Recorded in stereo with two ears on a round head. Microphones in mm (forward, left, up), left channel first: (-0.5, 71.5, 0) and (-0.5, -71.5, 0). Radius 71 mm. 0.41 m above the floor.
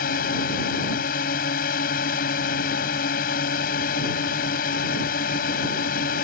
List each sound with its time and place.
0.0 s a drone: 60° left (ahead or behind)